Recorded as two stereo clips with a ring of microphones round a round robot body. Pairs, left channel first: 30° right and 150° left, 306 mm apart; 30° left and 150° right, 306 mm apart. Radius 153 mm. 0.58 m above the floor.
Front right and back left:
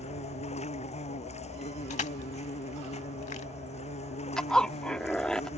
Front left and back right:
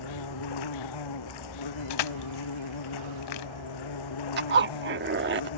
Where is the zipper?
115° right.